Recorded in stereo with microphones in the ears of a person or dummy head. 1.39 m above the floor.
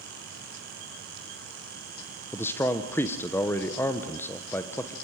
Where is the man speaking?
15° left (ahead or behind), 0.9 m.